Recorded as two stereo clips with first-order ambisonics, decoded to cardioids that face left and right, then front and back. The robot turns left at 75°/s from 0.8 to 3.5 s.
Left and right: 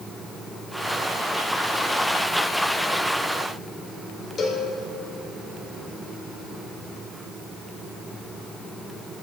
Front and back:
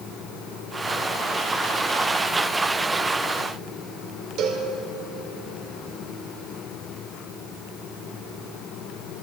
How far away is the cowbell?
About 1.5 m.